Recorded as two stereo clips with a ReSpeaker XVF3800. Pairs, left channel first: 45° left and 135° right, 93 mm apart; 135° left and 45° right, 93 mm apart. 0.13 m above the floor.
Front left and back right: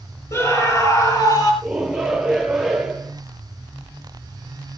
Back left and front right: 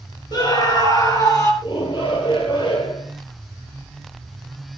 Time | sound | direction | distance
0.3 | a scream | 100° left | 4 m
1.6 | a shout | 140° left | 2.5 m